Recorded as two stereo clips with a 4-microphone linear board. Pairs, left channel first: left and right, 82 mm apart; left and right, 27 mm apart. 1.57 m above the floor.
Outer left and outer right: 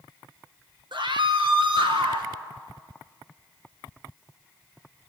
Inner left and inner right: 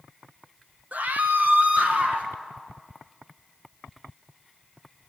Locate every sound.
0.9 s a scream: 70° right (ahead or behind), 1.6 m; by 2.3 s 80° right, 2.5 m